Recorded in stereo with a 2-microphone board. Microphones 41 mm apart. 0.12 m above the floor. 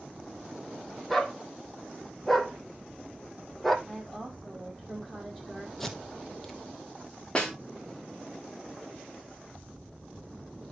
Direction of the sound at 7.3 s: 25° left (ahead or behind).